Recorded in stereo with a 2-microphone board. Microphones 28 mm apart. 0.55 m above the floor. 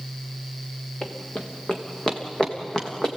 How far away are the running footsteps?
About 2.5 m.